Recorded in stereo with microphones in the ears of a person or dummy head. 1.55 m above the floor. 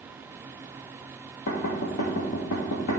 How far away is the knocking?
About 1.6 m.